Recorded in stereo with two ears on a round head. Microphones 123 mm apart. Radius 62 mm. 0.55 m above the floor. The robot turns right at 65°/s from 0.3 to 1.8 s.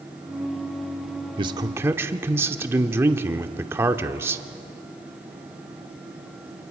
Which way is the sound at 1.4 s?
40° right (ahead or behind).